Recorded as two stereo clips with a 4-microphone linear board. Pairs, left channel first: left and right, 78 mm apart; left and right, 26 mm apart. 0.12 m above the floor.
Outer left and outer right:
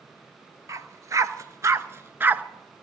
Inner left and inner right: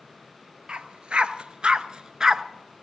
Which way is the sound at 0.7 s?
40° right (ahead or behind).